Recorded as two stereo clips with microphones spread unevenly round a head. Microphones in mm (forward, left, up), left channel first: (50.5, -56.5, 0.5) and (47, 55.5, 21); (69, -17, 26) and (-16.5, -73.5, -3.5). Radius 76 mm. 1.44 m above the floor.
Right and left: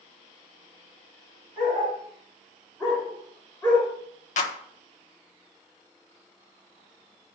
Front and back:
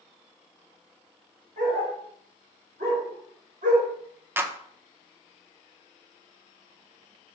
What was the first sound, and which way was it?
A dog barking, 170° left.